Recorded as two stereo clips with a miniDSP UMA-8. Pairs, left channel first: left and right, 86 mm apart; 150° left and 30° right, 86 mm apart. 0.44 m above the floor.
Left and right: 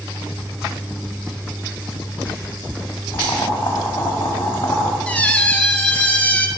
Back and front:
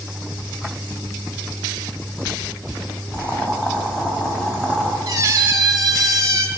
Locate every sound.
3.1 s boiling: 75° left, 2.0 m
5.1 s a squeak: 20° left, 0.7 m